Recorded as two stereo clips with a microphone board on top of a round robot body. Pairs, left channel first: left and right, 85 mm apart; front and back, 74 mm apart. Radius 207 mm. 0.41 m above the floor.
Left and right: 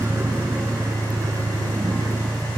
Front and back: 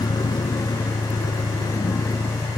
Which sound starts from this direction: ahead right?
A vehicle, at 0.0 s.